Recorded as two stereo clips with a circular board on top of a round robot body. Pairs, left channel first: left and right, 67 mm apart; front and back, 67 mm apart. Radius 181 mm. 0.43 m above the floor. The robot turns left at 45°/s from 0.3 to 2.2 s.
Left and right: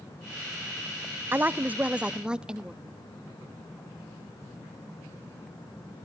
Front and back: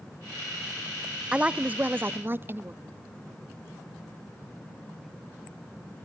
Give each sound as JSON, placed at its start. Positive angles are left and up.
{"t": 1.3, "sound": "a woman speaking", "azimuth_deg": -115, "distance_m": 0.8}